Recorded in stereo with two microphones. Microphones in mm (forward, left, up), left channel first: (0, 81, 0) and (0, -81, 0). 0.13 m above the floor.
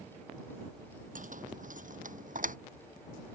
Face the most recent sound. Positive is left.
turn(degrees=-55)  # may be behind; listen again after turning